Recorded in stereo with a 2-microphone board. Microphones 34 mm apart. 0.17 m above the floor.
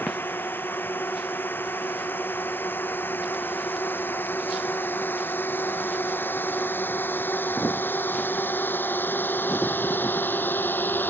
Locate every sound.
0.0 s a drone: 80° left; by 11.1 s 70° left (ahead or behind)